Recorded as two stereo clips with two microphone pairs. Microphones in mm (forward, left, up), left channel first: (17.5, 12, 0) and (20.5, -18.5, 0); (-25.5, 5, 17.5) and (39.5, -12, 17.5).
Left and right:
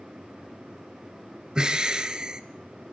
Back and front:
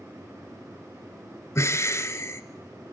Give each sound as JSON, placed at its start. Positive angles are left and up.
{"t": 1.6, "sound": "breathing", "azimuth_deg": -150, "distance_m": 1.3}